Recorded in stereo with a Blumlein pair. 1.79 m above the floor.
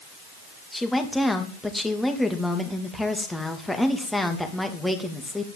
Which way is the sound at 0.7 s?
5° left.